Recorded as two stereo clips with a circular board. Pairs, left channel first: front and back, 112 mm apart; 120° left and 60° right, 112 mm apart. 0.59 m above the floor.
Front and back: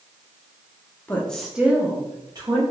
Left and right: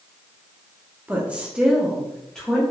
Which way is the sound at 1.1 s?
20° right.